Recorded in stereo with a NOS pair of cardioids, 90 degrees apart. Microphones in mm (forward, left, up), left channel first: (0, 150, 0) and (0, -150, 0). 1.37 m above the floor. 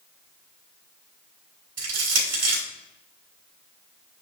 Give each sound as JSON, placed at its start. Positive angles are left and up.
{"t": 1.8, "sound": "crushing", "azimuth_deg": -55, "distance_m": 3.5}